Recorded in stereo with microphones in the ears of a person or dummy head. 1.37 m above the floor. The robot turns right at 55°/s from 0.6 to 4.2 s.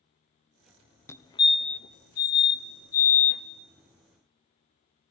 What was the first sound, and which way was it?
A fire alarm, 10° left (ahead or behind).